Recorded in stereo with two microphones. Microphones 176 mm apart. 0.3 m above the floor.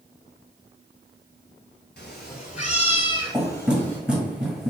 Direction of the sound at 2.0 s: 70° left (ahead or behind).